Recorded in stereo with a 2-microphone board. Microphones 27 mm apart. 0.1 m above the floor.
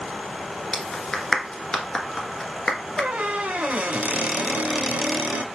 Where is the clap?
20° left (ahead or behind), 1.0 m.